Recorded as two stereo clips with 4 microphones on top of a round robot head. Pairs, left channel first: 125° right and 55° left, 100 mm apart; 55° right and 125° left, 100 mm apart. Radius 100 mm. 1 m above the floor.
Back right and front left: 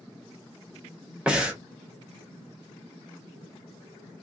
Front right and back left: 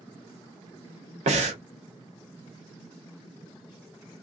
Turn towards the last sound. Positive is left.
turn(degrees=135)